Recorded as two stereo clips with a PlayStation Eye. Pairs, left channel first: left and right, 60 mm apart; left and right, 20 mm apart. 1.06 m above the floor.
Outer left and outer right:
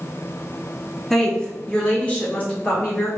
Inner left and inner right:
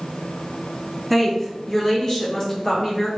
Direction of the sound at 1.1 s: 5° left (ahead or behind).